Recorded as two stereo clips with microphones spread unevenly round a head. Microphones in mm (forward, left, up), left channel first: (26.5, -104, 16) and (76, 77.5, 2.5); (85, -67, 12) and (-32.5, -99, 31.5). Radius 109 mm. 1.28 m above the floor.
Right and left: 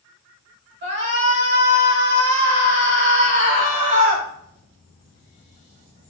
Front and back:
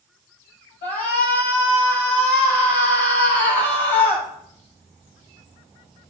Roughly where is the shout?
Ahead left.